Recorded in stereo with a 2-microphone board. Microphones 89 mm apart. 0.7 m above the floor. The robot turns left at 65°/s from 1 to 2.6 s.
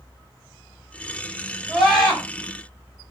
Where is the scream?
165° right, 2 m; by 2.2 s 160° left, 2 m.